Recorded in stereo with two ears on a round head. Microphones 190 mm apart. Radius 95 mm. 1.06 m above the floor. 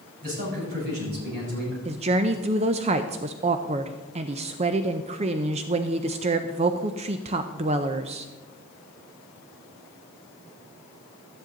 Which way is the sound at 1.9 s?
30° right (ahead or behind).